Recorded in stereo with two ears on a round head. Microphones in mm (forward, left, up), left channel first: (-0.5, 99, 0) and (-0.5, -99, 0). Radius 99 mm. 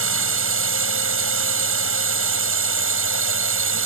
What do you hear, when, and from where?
0.0 s a drone: 65° right (ahead or behind)